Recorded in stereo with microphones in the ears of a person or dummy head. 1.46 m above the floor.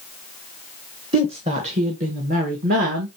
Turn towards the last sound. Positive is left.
turn(degrees=-55)  # may be behind; listen again after turning